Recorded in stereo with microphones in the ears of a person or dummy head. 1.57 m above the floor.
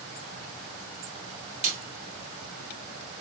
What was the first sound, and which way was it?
A snare drum, 45° right (ahead or behind).